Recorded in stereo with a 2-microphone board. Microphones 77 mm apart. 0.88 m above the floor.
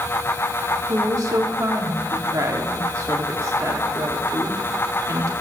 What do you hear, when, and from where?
0.9 s a woman speaking: 45° right (ahead or behind), 1.5 m